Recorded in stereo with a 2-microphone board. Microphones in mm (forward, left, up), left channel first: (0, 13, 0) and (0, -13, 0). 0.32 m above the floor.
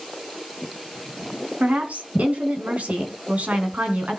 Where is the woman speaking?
65° right (ahead or behind), 3 m.